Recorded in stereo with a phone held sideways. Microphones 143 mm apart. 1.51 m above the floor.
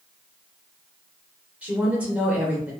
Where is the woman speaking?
10° right (ahead or behind), 1.1 m.